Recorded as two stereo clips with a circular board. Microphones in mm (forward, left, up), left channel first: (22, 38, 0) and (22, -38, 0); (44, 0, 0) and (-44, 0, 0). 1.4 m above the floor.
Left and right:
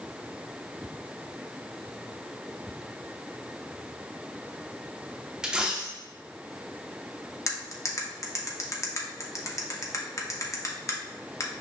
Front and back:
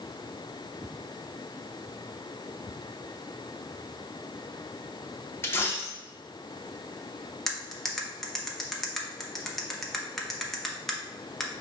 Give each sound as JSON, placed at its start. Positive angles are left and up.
{"t": 5.4, "sound": "a dropped coin", "azimuth_deg": -25, "distance_m": 0.7}
{"t": 7.5, "sound": "cutlery clinking", "azimuth_deg": 85, "distance_m": 0.7}